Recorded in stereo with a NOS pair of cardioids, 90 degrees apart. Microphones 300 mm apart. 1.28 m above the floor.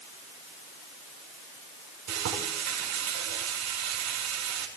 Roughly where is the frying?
Ahead right.